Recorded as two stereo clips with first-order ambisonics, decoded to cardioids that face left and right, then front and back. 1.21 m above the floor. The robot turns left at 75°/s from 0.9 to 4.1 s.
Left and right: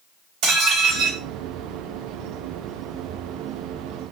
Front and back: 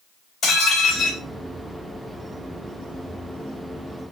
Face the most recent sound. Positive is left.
turn(degrees=60)